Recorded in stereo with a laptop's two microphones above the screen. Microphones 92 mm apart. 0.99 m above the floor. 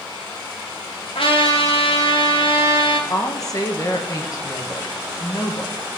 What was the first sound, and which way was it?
A trumpet, 75° left (ahead or behind).